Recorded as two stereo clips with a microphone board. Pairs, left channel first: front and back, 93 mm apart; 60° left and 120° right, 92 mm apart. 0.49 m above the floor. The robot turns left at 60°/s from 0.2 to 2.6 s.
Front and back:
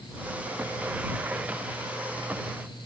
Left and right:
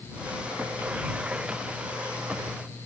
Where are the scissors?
No scissors in this recording.